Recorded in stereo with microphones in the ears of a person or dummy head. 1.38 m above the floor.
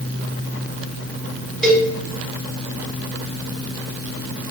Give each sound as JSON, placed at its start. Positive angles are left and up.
{"t": 1.6, "sound": "a cowbell", "side_deg": 5, "distance_m": 1.0}